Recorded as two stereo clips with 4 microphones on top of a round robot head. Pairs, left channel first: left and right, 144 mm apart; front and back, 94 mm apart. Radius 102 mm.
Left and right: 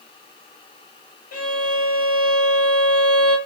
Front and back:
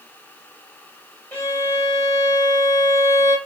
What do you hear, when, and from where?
1.3 s a violin: 65° left, 1.9 m